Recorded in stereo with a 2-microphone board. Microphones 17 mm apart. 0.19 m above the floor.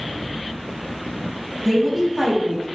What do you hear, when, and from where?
1.6 s a woman speaking: 5° right (ahead or behind), 1.0 m; by 2.7 s 35° right (ahead or behind), 1.2 m